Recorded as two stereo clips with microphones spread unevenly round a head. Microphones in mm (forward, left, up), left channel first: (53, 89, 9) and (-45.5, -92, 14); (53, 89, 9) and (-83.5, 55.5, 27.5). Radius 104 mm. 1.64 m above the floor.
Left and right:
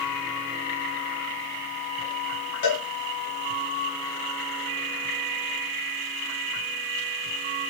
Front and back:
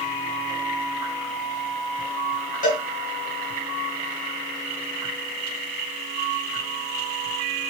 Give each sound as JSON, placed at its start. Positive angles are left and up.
{"t": 2.6, "sound": "a cowbell", "azimuth_deg": 35, "distance_m": 1.3}